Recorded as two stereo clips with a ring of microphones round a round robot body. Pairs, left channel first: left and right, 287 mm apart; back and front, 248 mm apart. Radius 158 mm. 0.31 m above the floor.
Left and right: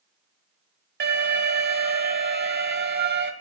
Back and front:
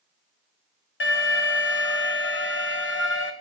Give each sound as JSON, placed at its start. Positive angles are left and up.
{"t": 1.0, "sound": "an alarm", "azimuth_deg": -140, "distance_m": 1.7}